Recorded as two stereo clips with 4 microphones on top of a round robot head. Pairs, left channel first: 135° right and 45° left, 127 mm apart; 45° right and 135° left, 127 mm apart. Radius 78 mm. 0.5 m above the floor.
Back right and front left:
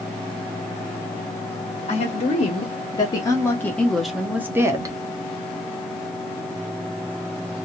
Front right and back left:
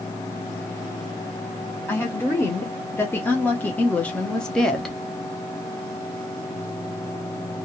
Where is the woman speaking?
115° right, 1.6 m; by 5.0 s 40° left, 1.1 m.